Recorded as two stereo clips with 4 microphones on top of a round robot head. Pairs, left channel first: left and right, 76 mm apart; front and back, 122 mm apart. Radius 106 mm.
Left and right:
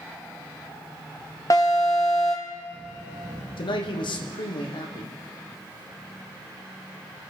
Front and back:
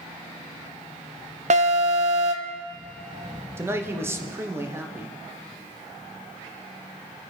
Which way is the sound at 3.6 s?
110° left.